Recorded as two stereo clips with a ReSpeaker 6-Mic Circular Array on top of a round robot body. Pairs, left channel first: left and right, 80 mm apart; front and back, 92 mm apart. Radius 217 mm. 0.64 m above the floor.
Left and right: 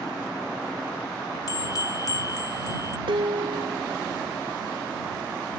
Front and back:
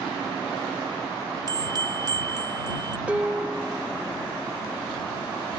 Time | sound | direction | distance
1.5 | a bell | 135° left | ?
3.1 | dishes clattering | 100° right | ?